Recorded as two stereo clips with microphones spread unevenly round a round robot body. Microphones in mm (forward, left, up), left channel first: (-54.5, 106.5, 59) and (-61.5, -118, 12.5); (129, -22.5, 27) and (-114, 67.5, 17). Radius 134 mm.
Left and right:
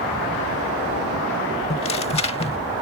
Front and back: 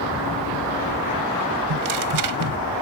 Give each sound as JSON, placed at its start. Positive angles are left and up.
{"t": 1.7, "sound": "tearing paper", "azimuth_deg": 150}